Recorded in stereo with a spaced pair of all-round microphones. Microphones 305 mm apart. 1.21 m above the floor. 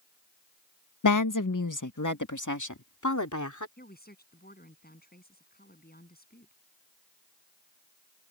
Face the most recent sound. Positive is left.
turn(degrees=30)  # may be behind; listen again after turning